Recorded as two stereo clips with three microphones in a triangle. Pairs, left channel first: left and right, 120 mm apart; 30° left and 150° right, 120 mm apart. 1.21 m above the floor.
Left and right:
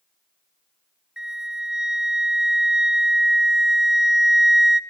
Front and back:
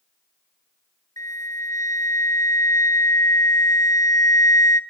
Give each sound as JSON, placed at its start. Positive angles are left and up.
{"t": 1.2, "sound": "a flute", "azimuth_deg": -10, "distance_m": 0.8}